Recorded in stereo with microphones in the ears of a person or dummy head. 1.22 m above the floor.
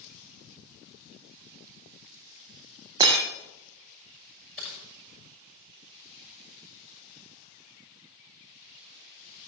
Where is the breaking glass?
30° right (ahead or behind), 5 m.